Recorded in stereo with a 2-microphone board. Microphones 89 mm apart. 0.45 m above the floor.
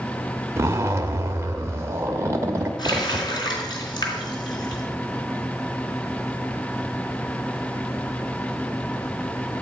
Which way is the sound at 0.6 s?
30° right (ahead or behind).